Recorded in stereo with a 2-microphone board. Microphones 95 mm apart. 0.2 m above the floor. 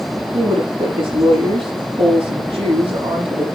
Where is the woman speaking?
75° right (ahead or behind), 7.5 m.